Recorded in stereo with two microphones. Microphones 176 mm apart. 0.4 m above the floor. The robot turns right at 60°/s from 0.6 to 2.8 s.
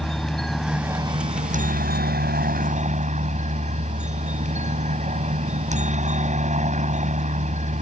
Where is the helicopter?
Straight behind; by 7.8 s 50° right.